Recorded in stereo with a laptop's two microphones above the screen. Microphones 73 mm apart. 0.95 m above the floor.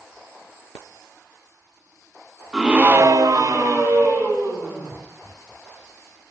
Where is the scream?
5° right (ahead or behind), 0.9 m; by 4.9 s 30° right (ahead or behind), 2.5 m.